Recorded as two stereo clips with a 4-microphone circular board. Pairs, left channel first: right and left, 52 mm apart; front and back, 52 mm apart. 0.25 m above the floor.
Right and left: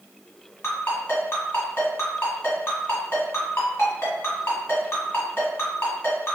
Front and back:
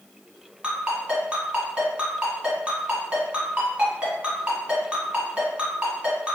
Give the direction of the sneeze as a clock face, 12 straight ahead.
No sneeze in this recording.